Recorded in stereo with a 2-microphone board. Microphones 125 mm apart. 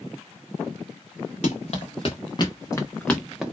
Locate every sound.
1.4 s running footsteps: 60° left (ahead or behind), 1.2 m; by 3.4 s 5° right (ahead or behind), 0.9 m